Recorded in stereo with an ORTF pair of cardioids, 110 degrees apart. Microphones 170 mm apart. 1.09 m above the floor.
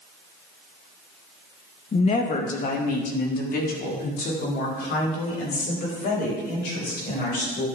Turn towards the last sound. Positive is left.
turn(degrees=70)